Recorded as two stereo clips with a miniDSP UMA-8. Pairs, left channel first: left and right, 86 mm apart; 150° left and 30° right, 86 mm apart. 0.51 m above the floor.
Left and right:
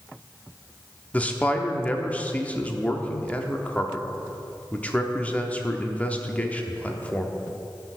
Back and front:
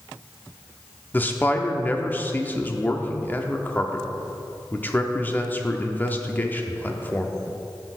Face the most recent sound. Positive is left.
turn(degrees=135)